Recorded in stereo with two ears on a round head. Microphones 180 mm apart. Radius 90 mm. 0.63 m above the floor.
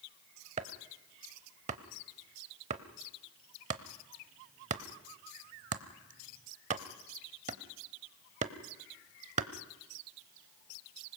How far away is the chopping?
About 0.8 m.